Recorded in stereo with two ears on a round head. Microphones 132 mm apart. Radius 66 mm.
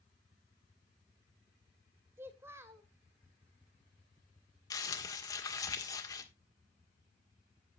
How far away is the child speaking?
About 2.5 m.